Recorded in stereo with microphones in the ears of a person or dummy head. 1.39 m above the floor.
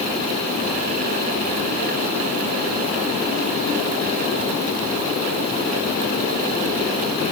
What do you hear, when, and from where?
Only background noise.